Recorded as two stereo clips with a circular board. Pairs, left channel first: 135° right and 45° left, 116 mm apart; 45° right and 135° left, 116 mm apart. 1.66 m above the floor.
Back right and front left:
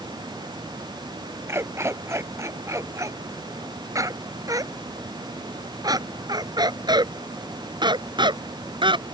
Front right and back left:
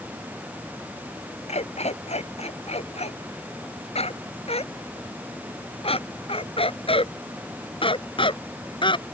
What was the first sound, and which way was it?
A dog barking, 25° right.